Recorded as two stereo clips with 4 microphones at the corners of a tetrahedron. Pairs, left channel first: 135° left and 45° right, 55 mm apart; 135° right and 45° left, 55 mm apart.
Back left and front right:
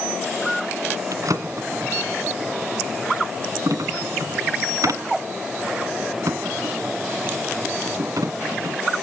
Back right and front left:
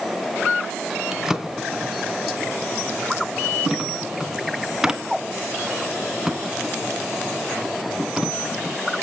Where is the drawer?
35° right, 2 m.